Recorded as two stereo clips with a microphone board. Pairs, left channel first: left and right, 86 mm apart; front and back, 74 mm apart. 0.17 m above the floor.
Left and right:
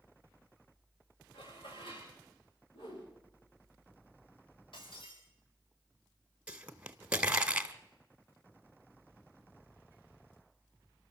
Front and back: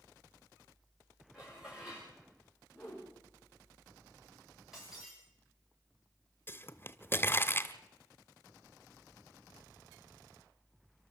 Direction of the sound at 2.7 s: 95° left.